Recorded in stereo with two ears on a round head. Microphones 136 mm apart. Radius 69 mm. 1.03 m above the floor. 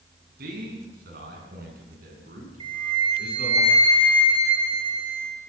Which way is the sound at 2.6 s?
35° right (ahead or behind).